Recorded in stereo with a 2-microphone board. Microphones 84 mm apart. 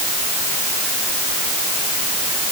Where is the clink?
No clink in this recording.